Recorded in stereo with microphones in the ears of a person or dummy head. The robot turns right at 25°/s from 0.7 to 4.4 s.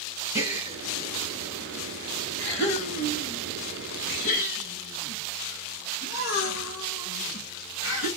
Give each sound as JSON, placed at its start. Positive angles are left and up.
{"t": 0.3, "sound": "a gasp", "side_deg": -15, "distance_m": 1.4}